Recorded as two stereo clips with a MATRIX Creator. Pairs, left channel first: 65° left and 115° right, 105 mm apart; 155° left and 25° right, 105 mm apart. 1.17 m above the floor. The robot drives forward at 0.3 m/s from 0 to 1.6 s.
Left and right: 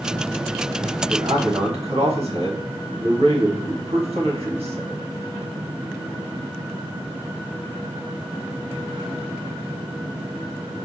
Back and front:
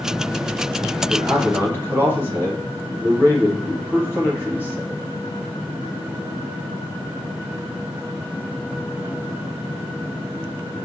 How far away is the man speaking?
About 1.4 m.